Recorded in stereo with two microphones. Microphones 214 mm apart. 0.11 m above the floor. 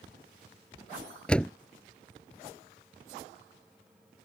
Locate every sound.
1.3 s a door slam: 5° left (ahead or behind)